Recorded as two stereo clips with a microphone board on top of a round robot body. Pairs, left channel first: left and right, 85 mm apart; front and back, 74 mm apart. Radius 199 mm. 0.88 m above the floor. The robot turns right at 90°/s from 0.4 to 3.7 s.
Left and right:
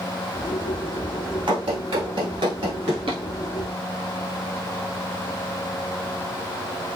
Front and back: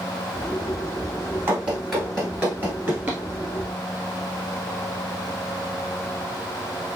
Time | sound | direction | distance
1.5 | running footsteps | 120° right | 1.5 m